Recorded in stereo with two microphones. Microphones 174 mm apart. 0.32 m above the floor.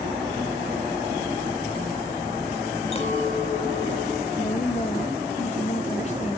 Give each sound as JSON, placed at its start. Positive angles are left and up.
{"t": 2.9, "sound": "a clink", "side_deg": 30, "distance_m": 0.9}
{"t": 4.4, "sound": "a woman speaking", "side_deg": 40, "distance_m": 1.3}